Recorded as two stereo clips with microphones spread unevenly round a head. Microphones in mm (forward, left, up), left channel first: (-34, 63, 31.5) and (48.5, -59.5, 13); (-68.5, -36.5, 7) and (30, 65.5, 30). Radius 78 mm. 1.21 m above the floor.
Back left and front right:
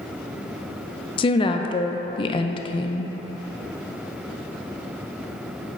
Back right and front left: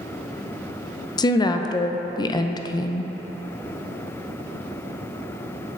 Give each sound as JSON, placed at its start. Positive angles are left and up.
{"t": 1.2, "sound": "a woman speaking", "azimuth_deg": 180, "distance_m": 0.5}